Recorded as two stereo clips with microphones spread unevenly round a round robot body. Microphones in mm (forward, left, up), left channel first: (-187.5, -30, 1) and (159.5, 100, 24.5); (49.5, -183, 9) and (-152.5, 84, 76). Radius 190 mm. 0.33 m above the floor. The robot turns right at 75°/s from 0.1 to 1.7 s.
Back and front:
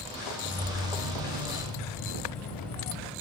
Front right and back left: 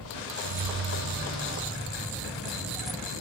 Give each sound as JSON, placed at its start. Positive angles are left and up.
{"t": 0.4, "sound": "keys jangling", "azimuth_deg": 125, "distance_m": 1.0}